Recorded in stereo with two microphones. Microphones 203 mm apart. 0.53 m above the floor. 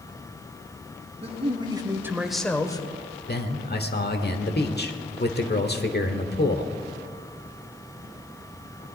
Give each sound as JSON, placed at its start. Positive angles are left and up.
{"t": 1.2, "sound": "a man speaking", "side_deg": -30, "distance_m": 2.5}
{"t": 3.3, "sound": "a man speaking", "side_deg": 55, "distance_m": 1.3}